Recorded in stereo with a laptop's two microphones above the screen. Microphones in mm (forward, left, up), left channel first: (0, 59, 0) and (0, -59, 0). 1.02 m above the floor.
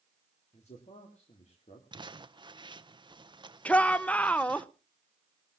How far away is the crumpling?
About 0.8 m.